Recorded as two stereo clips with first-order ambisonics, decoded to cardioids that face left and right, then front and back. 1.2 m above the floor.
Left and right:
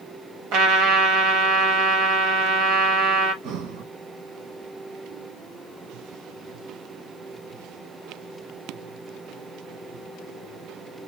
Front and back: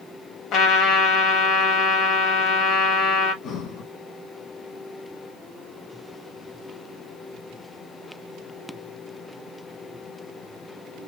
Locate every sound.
0.5 s a trumpet: 45° right, 1.9 m
3.4 s breathing: 55° right, 1.3 m